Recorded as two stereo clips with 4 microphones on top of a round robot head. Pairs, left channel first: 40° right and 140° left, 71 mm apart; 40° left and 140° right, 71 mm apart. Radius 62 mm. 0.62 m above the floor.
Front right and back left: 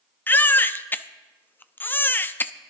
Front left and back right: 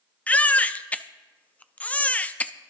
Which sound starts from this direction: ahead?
A baby crying, at 0.3 s.